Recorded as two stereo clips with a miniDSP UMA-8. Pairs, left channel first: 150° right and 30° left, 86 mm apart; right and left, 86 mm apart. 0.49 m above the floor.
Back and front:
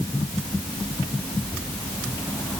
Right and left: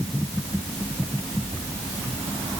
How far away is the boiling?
I don't hear boiling.